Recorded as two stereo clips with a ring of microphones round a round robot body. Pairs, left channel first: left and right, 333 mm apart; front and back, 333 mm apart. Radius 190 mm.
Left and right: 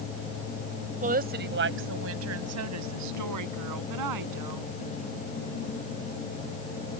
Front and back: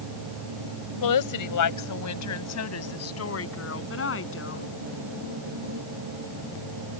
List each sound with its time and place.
1.0 s a woman speaking: 20° right; by 4.7 s 55° right